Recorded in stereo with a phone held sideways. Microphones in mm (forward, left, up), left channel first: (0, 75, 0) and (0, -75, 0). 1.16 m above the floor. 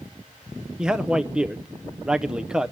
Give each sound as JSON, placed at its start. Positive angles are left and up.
{"t": 0.8, "sound": "a man speaking", "side_deg": -5, "distance_m": 0.7}